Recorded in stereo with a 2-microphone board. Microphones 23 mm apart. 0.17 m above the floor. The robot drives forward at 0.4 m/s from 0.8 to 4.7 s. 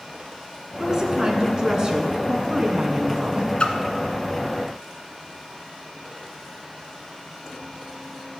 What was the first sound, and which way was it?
A woman speaking, 25° right (ahead or behind).